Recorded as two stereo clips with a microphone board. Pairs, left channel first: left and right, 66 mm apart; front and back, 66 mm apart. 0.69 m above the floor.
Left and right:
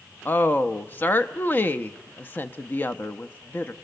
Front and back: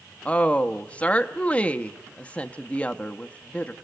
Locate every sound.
0.2 s a woman speaking: 55° left, 0.8 m